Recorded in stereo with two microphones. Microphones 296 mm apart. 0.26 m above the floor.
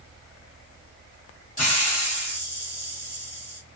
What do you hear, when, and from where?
1.6 s a hiss: 25° left (ahead or behind), 1.4 m